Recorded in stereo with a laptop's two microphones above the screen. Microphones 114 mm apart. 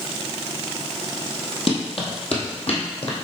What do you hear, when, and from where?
1.7 s running footsteps: 55° left (ahead or behind), 1.9 m; by 3.1 s 65° left (ahead or behind), 2.5 m